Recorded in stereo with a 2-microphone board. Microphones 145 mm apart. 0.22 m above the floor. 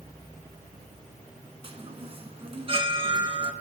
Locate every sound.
1.6 s a chime: 40° right (ahead or behind), 2 m